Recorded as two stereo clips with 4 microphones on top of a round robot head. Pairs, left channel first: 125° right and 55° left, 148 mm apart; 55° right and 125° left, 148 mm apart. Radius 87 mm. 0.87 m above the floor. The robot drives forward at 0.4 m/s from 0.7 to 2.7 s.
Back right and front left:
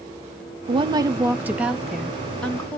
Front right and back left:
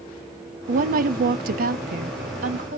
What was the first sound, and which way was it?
A woman speaking, 105° left.